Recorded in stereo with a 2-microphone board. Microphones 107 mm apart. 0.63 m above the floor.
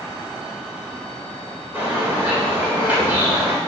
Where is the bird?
20° right (ahead or behind), 2.5 m.